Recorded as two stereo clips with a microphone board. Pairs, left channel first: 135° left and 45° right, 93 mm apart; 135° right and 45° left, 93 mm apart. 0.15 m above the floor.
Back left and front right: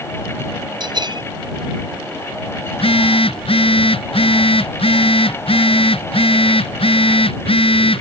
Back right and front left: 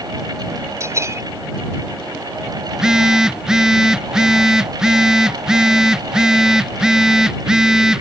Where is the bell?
15° right.